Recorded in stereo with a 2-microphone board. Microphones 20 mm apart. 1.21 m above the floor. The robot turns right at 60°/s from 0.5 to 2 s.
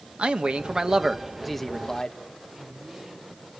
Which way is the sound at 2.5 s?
30° right (ahead or behind).